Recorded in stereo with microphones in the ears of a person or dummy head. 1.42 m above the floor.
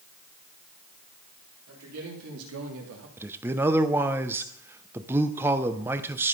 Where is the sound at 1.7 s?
85° right, 3.5 m; by 3.1 s 65° right (ahead or behind), 1.9 m.